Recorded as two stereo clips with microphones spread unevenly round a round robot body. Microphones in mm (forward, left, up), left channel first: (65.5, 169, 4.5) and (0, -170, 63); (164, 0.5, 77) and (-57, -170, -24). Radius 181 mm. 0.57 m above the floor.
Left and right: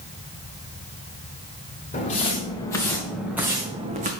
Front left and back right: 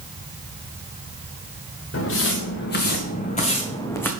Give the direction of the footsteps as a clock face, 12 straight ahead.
12 o'clock.